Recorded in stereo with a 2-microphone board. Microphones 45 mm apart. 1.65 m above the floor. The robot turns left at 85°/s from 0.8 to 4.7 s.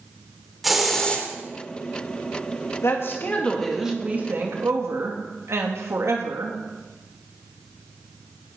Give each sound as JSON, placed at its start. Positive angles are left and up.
{"t": 0.6, "sound": "a hiss", "azimuth_deg": 180, "distance_m": 3.0}
{"t": 2.8, "sound": "a woman speaking", "azimuth_deg": 75, "distance_m": 2.5}